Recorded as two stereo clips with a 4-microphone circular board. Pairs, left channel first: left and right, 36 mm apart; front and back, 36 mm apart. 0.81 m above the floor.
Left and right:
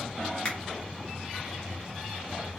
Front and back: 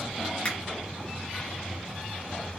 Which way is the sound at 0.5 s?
40° left.